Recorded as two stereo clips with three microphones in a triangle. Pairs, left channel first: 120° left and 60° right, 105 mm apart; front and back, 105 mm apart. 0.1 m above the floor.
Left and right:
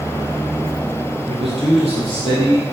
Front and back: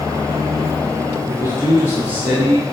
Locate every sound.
1.3 s a man speaking: 50° right, 3 m; by 2.6 s 85° right, 3 m